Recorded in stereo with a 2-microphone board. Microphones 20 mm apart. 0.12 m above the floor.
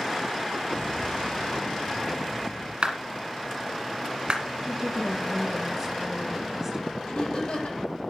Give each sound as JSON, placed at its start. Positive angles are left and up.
{"t": 0.7, "sound": "an explosion", "side_deg": 80, "distance_m": 6.0}
{"t": 2.8, "sound": "a clap", "side_deg": -50, "distance_m": 2.0}
{"t": 4.6, "sound": "a woman speaking", "side_deg": -20, "distance_m": 2.0}
{"t": 7.0, "sound": "laughter", "side_deg": 70, "distance_m": 6.0}